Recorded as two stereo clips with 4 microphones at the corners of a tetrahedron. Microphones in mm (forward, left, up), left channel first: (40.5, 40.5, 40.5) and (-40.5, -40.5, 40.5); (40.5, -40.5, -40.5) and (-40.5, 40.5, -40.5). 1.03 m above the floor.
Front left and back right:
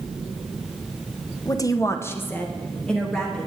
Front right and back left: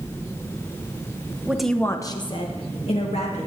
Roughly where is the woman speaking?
Left.